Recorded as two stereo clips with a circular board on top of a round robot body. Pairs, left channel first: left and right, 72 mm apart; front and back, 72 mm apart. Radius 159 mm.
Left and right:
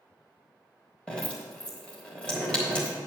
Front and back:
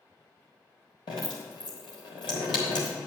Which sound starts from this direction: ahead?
Dripping, at 1.1 s.